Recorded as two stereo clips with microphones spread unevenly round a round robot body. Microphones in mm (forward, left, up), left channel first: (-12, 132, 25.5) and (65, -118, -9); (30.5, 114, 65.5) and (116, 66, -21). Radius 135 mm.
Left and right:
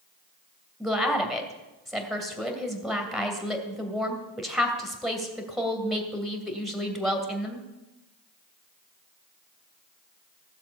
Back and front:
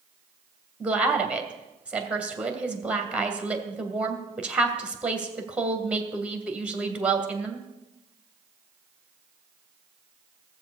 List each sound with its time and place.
0.8 s a woman speaking: 10° left, 2.5 m